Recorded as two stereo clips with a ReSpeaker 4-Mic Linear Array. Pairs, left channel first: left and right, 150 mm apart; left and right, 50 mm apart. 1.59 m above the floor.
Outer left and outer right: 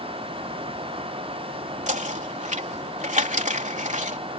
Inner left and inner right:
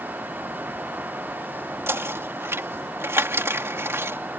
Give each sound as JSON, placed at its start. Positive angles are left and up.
{"t": 1.9, "sound": "knocking", "side_deg": -55}